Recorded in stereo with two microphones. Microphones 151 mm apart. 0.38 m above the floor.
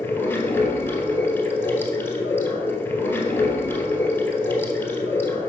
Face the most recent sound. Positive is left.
turn(degrees=15)  # may be behind; listen again after turning